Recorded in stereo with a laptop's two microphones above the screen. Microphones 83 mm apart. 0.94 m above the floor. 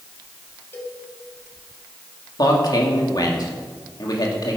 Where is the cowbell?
30° left (ahead or behind), 3 m.